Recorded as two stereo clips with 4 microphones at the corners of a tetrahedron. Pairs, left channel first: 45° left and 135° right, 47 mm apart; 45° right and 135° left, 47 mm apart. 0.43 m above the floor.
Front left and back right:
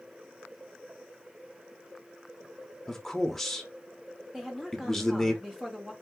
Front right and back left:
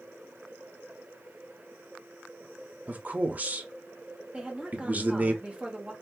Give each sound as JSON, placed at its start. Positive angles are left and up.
{"t": 2.9, "sound": "a man speaking", "azimuth_deg": 125, "distance_m": 1.0}
{"t": 4.3, "sound": "a woman speaking", "azimuth_deg": 160, "distance_m": 1.2}